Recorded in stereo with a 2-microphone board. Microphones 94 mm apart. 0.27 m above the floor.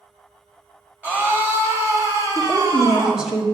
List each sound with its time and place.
1.0 s a scream: 20° right (ahead or behind), 1.1 m; by 3.3 s 45° right (ahead or behind), 1.6 m
2.4 s a woman speaking: 5° right (ahead or behind), 1.2 m